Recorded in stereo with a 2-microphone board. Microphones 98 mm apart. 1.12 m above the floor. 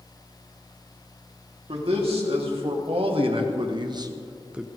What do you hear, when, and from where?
1.7 s a man speaking: 70° right (ahead or behind), 3 m; by 4.7 s centre (ahead or behind), 0.8 m